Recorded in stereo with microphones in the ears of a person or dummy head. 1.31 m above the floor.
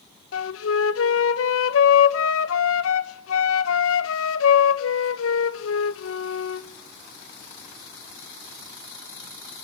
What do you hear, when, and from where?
0.3 s a flute: 80° left, 1.3 m